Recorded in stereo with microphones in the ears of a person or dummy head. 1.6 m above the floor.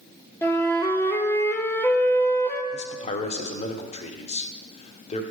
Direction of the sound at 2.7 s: 25° left (ahead or behind).